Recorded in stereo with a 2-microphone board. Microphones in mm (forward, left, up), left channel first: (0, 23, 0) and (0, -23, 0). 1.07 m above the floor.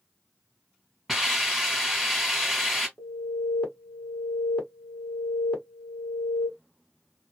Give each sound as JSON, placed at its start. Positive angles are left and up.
{"t": 1.1, "sound": "a hiss", "side_deg": 0, "distance_m": 1.6}
{"t": 3.0, "sound": "an alarm", "side_deg": 25, "distance_m": 1.5}